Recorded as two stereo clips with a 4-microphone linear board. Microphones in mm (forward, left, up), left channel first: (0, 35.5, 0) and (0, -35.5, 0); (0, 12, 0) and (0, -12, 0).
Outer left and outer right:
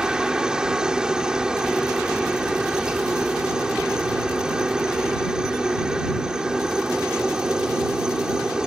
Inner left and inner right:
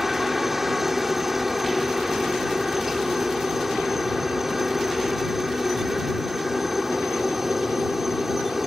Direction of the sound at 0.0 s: 10° right (ahead or behind).